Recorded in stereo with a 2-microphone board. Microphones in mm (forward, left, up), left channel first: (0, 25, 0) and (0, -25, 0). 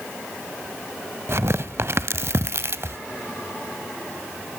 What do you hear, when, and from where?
1.3 s tearing paper: 55° right (ahead or behind), 0.7 m